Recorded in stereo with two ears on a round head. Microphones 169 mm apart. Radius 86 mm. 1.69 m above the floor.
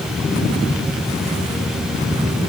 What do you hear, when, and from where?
Only background noise.